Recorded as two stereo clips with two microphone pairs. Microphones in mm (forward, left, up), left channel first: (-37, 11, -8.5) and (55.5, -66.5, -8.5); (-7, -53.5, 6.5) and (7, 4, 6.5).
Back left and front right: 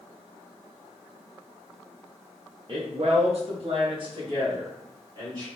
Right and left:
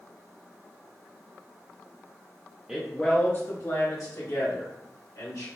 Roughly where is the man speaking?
Ahead.